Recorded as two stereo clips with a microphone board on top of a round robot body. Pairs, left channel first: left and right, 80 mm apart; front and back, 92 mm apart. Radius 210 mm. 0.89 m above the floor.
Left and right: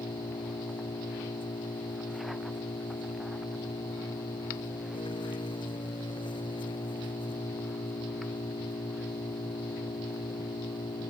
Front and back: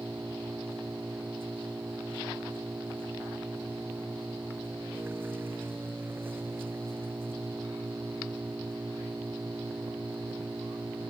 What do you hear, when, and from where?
0.0 s an engine running: 110° left